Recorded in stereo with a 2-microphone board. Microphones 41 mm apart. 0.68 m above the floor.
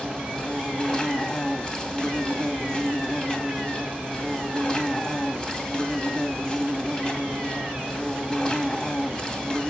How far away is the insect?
About 2 m.